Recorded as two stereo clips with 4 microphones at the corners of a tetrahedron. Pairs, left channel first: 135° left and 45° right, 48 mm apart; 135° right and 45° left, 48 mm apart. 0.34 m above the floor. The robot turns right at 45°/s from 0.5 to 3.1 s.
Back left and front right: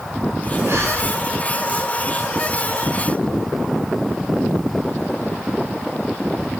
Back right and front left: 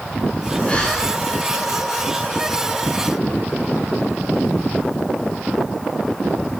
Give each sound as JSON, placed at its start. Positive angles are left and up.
{"t": 0.7, "sound": "breathing", "azimuth_deg": -70, "distance_m": 7.5}